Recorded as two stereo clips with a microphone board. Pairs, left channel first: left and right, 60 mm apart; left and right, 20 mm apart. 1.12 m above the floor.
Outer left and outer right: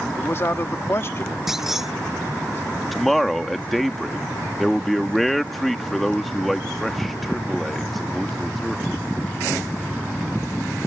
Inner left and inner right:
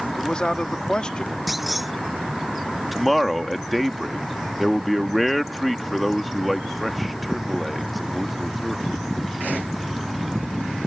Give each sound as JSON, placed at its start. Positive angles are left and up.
{"t": 0.2, "sound": "a man speaking", "side_deg": 45}
{"t": 1.5, "sound": "a clunk", "side_deg": -5}
{"t": 2.9, "sound": "a man speaking", "side_deg": 0}